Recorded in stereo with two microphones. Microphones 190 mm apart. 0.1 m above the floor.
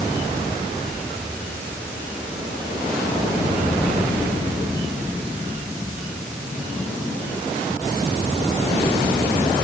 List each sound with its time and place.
Only background noise.